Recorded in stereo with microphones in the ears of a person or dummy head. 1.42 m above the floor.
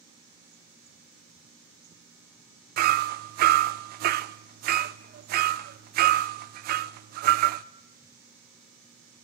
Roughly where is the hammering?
Right.